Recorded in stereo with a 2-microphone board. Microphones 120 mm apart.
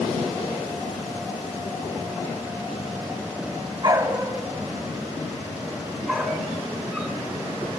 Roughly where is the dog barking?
Right.